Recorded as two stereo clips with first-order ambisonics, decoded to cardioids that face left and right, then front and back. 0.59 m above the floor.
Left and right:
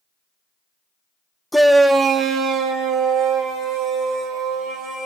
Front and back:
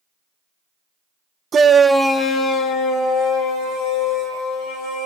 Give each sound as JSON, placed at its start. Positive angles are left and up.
{"t": 1.5, "sound": "a shout", "azimuth_deg": 175, "distance_m": 0.8}